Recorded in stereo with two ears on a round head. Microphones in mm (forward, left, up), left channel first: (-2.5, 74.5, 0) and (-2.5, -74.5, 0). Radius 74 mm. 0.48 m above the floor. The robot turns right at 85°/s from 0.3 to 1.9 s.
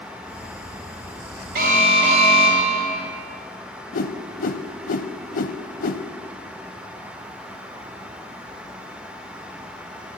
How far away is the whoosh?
About 0.5 m.